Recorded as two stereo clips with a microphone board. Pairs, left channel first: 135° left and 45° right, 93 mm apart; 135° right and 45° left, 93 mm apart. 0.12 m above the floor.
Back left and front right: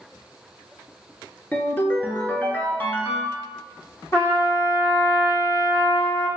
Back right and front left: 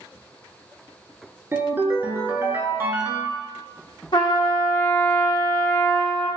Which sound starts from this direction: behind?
A trumpet, at 4.1 s.